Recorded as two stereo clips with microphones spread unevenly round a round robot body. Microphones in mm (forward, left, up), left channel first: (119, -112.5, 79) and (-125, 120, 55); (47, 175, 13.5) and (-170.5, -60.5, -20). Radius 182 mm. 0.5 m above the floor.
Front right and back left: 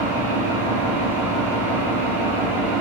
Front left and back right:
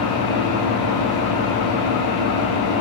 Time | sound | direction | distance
0.0 | an engine running | 55° left | 2 m